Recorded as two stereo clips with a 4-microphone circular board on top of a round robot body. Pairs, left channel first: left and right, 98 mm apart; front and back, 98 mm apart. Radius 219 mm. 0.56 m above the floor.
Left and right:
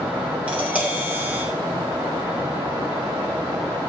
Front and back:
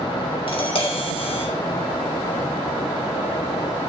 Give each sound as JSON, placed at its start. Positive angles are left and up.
{"t": 0.5, "sound": "tapping", "azimuth_deg": -15, "distance_m": 3.0}